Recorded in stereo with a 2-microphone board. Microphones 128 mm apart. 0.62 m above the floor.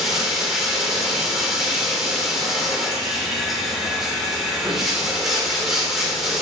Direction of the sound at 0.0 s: 5° right (ahead or behind).